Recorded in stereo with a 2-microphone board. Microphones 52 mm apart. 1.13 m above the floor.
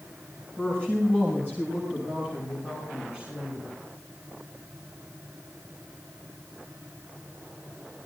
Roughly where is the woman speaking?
Right.